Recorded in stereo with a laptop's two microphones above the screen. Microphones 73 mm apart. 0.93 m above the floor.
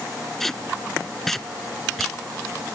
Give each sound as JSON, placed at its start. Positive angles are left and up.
{"t": 0.4, "sound": "tape being pulled", "side_deg": 5}